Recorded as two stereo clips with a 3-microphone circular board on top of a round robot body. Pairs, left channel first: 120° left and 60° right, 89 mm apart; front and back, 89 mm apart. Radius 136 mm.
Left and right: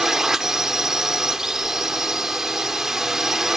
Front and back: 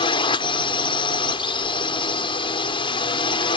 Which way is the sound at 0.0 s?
25° left.